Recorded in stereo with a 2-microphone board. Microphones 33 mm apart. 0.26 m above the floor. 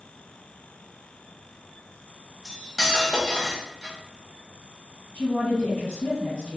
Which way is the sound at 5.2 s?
45° left (ahead or behind).